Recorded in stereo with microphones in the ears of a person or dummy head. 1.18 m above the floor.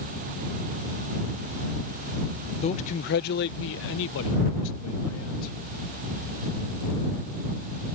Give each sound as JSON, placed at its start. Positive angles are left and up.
{"t": 2.6, "sound": "a man speaking", "side_deg": 25}